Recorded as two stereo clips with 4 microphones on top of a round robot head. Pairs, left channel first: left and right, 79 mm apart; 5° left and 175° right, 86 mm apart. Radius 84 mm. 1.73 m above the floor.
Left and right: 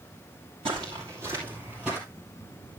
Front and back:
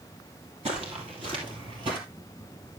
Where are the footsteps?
135° right, 2 m; by 2.0 s straight behind, 2 m.